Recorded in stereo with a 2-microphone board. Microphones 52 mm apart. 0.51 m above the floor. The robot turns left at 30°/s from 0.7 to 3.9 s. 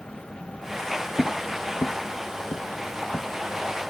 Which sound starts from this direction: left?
Footsteps, at 1.2 s.